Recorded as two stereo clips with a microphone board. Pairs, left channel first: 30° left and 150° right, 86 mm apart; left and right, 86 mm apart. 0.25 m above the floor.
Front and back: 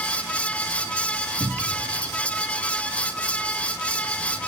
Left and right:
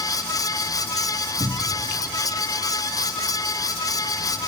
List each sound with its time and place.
1.4 s a cupboard door: 105° right, 2.5 m